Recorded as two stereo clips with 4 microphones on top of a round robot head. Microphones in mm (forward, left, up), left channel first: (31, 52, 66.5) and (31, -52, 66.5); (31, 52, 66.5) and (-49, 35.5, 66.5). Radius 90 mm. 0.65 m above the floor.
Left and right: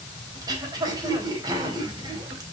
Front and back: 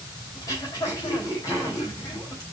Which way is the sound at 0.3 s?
40° right.